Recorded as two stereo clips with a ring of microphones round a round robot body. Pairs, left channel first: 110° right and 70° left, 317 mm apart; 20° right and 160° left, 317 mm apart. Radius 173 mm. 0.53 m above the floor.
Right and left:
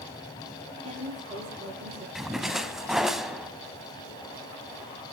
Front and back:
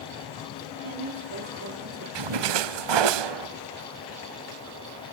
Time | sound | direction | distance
0.8 | a woman speaking | 135° left | 5.5 m
2.1 | a splash | 155° left | 0.8 m